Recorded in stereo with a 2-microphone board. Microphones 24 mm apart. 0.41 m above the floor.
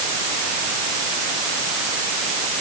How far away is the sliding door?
I don't hear a sliding door.